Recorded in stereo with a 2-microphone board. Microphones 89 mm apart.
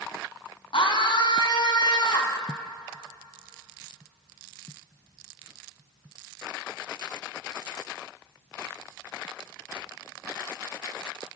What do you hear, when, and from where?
0.7 s a scream: 65° left (ahead or behind), 4 m; by 2.4 s 50° left (ahead or behind), 4 m